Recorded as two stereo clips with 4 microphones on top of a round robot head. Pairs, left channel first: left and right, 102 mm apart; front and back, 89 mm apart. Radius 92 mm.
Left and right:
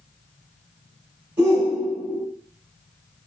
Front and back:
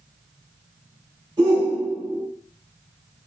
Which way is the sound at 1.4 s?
135° right.